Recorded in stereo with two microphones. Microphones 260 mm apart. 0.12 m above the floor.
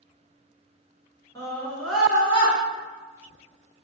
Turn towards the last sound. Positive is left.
turn(degrees=-10)  # may be behind; listen again after turning